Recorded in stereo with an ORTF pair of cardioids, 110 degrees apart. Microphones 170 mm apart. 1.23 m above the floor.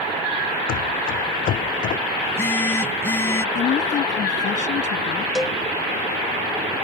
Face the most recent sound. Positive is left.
turn(degrees=5)